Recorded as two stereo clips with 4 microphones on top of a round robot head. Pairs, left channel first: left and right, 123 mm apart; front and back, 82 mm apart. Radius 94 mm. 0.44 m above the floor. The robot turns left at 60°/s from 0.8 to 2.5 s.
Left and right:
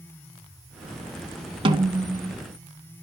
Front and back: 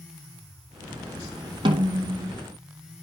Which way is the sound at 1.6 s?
140° right.